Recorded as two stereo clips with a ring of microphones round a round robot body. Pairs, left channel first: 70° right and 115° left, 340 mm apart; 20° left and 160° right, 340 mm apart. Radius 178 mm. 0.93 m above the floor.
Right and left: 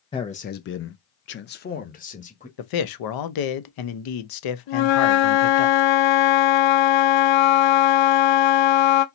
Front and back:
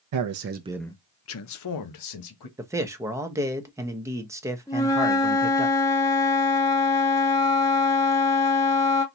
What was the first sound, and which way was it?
A man speaking, 140° right.